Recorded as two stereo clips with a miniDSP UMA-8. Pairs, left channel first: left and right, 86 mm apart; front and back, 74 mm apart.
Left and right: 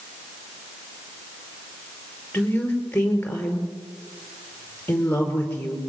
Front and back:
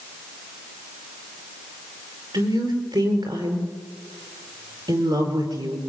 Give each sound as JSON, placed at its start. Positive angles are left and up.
{"t": 2.3, "sound": "a woman speaking", "azimuth_deg": 160, "distance_m": 5.5}